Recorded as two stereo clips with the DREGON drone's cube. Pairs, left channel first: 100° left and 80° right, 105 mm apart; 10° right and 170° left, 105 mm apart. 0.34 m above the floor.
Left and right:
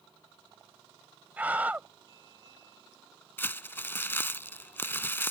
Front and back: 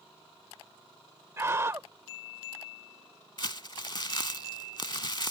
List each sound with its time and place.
1.4 s a scream: 140° right
3.4 s crumpling: 30° left